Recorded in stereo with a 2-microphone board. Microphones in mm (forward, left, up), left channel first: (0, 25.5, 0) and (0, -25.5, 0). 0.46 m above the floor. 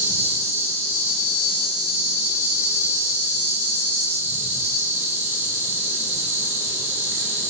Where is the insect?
85° right, 1.0 m.